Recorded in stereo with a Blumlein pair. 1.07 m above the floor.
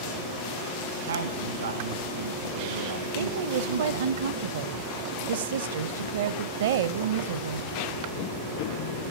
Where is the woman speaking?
60° right, 0.7 m.